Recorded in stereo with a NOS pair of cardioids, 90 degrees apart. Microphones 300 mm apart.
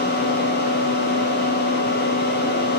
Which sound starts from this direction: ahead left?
A fan, at 0.0 s.